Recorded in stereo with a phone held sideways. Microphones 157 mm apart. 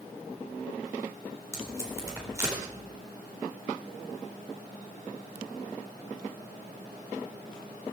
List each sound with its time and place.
1.5 s tape being pulled: 20° right (ahead or behind), 4 m